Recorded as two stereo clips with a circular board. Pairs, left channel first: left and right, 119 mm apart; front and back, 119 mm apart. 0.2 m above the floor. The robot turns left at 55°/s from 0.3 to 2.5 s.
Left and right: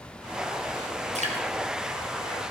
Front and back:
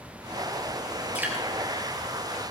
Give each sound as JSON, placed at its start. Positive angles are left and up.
{"t": 1.1, "sound": "dripping", "azimuth_deg": -100, "distance_m": 3.5}